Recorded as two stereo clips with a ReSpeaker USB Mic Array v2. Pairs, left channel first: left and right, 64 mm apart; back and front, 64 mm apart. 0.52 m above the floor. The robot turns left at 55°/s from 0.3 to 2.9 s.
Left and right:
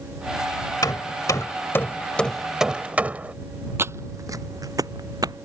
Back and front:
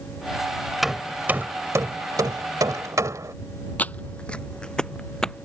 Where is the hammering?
90° left; by 3.3 s 25° right.